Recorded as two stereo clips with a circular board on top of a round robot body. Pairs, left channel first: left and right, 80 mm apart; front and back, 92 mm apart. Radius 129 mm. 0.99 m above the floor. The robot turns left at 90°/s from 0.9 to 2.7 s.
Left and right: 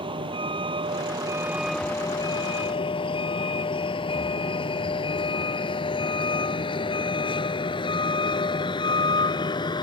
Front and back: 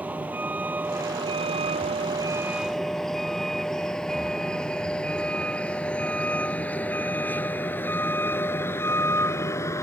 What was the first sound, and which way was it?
A vehicle, 105° right.